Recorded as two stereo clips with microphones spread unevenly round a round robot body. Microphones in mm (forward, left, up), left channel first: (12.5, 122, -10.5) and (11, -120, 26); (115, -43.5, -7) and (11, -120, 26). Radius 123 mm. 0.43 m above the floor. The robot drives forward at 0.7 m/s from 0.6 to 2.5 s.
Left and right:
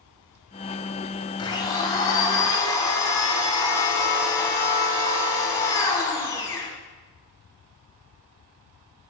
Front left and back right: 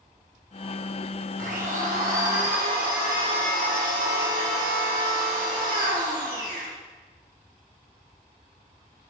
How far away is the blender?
About 1.5 m.